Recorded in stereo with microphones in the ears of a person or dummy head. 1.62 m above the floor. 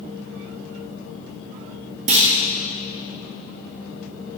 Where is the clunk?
35° right (ahead or behind), 1.5 m.